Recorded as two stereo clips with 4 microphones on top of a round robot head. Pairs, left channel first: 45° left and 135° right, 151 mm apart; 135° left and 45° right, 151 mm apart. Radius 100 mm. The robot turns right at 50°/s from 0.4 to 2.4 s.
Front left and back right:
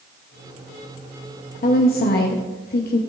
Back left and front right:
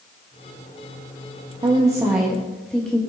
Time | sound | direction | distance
1.6 | a woman speaking | 15° left | 0.8 m